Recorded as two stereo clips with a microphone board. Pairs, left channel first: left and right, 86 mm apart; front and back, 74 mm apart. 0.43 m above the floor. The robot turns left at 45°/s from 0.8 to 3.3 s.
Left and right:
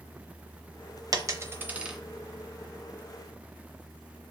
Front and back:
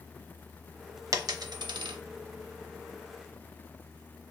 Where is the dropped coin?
135° right, 0.6 m; by 2.0 s 175° right, 0.6 m.